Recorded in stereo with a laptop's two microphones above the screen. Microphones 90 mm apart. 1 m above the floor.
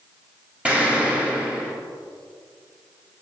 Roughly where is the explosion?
Centre.